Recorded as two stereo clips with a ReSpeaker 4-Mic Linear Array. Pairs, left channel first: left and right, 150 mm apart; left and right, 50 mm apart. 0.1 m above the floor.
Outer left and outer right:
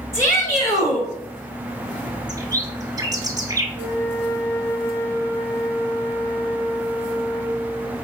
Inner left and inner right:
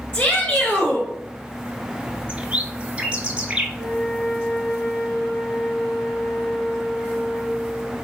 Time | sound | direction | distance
0.1 | a shout | 20° left (ahead or behind) | 1.4 m
2.3 | a bird | 25° right (ahead or behind) | 0.7 m
3.8 | a flute | 15° left (ahead or behind) | 1.5 m